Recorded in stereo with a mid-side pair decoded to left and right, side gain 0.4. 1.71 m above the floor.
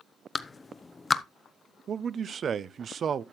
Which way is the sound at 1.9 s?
60° right.